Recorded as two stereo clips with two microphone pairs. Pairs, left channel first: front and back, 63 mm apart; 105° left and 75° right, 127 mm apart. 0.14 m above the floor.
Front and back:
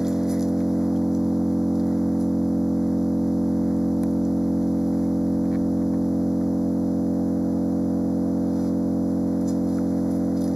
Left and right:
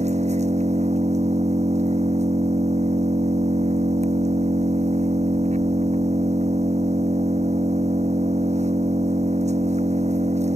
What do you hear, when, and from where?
0.0 s an engine running: 95° right